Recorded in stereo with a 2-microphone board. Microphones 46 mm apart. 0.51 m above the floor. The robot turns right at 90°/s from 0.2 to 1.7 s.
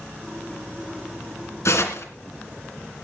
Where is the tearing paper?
85° left, 2.5 m; by 2.1 s 90° left, 2.5 m.